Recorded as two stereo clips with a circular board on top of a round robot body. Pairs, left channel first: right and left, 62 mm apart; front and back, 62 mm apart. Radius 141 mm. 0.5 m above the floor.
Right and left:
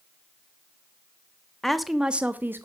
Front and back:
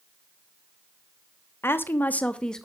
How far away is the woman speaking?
About 1.3 m.